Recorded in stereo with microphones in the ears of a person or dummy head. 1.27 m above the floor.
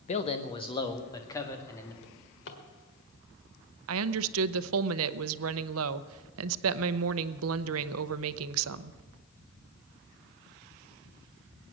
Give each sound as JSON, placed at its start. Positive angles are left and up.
{"t": 0.1, "sound": "a man speaking", "side_deg": 35, "distance_m": 1.1}
{"t": 2.0, "sound": "a drawer", "side_deg": 60, "distance_m": 1.6}
{"t": 3.9, "sound": "a woman speaking", "side_deg": -80, "distance_m": 0.6}